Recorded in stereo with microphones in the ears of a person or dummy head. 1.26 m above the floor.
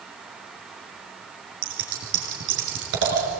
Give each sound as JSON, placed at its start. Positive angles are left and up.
{"t": 1.6, "sound": "scissors", "side_deg": -70, "distance_m": 5.5}